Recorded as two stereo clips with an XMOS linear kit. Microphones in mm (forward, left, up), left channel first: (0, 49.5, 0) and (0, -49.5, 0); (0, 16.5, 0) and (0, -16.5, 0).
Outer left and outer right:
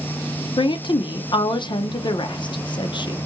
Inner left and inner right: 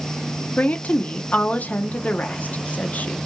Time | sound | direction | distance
0.6 | a woman speaking | 55° left (ahead or behind) | 0.6 m